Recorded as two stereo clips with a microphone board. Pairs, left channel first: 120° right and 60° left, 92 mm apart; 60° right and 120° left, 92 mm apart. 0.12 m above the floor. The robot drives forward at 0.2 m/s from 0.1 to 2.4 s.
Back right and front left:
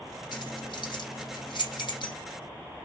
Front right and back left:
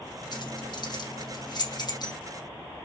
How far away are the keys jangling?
About 3.5 m.